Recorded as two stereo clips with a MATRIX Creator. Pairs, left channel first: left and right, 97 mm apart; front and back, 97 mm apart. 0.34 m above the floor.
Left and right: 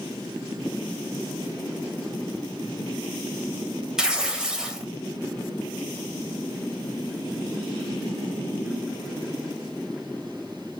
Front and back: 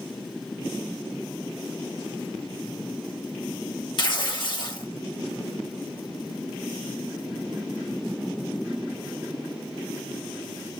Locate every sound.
4.0 s tearing paper: 10° right, 0.7 m